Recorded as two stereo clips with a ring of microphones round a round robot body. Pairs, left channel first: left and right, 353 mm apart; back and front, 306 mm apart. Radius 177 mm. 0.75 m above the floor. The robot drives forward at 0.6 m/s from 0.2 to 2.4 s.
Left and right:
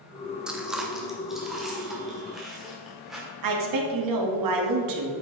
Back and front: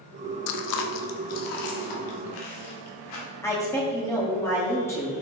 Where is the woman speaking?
100° right, 1.3 m.